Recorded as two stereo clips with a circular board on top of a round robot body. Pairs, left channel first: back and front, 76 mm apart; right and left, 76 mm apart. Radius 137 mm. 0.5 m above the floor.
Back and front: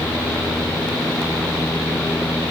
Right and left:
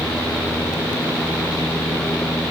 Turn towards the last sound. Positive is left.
No sound to turn to.